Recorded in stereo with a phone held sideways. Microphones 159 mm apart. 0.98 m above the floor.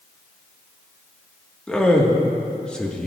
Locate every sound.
1.7 s a man speaking: 5° left (ahead or behind), 1.4 m